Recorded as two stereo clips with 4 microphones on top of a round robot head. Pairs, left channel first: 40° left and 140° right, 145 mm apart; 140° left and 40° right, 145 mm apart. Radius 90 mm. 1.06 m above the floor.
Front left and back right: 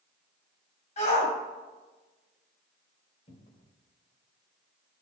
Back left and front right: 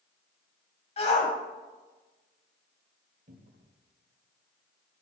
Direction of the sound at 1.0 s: 90° left.